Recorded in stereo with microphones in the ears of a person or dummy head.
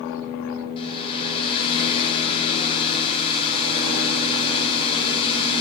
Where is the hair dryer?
35° left (ahead or behind), 1.6 m.